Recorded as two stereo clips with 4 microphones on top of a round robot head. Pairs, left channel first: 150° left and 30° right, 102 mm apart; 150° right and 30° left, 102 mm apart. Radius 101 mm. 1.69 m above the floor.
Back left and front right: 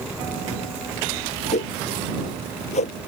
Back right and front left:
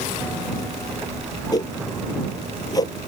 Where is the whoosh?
155° left.